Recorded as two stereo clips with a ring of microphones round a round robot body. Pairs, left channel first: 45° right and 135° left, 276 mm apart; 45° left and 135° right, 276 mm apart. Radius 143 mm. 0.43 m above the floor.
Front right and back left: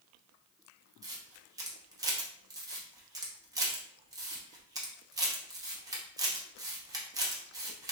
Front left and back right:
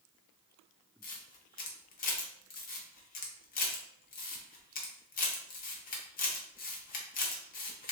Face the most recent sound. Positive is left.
turn(degrees=70)